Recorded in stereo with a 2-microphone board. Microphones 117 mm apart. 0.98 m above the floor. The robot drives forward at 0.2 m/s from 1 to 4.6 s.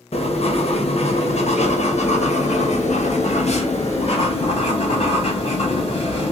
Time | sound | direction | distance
0.1 | writing | 65° left (ahead or behind) | 0.8 m